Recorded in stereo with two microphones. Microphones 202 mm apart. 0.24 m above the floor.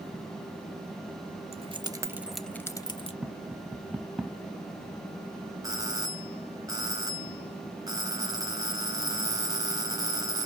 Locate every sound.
1.5 s keys jangling: 30° right (ahead or behind), 0.9 m; by 3.1 s 30° left (ahead or behind), 0.9 m
3.2 s tapping: 5° right (ahead or behind), 0.6 m
5.6 s a doorbell: 20° right (ahead or behind), 1.5 m